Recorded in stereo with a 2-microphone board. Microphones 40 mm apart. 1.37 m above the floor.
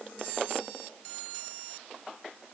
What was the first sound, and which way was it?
Only background noise.